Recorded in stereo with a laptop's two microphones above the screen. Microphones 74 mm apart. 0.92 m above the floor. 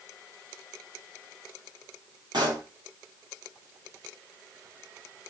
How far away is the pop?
About 4.5 m.